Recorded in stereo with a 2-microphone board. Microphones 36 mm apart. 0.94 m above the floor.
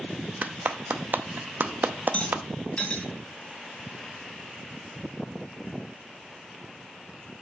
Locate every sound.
0.4 s a clap: 55° right (ahead or behind), 0.6 m
2.1 s a rattle: 35° left (ahead or behind), 2.5 m